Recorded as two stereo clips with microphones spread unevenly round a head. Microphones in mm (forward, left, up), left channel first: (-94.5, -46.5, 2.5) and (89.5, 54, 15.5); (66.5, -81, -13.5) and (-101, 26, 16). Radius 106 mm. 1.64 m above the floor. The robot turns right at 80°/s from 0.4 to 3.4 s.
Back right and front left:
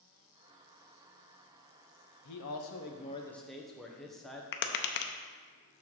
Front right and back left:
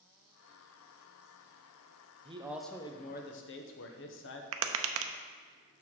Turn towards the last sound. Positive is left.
turn(degrees=170)